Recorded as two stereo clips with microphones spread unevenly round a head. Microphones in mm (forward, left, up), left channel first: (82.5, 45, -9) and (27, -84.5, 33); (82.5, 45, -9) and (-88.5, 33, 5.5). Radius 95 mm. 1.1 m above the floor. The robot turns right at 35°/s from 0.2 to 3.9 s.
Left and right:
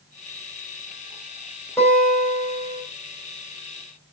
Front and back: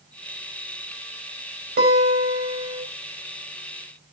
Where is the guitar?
150° left, 5.5 m; by 2.8 s 175° right, 5.5 m.